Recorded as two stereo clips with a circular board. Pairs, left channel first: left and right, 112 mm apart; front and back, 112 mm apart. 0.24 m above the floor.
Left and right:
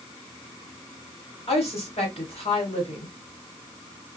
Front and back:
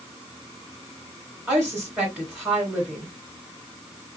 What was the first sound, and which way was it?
A woman speaking, 105° left.